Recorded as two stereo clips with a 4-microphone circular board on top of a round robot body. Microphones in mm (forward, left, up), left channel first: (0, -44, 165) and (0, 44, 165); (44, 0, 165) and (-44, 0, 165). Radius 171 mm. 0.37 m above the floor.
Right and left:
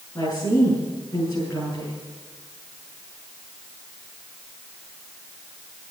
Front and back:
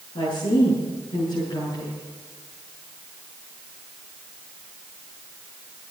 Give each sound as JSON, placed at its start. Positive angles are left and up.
{"t": 0.1, "sound": "a woman speaking", "azimuth_deg": -25, "distance_m": 8.5}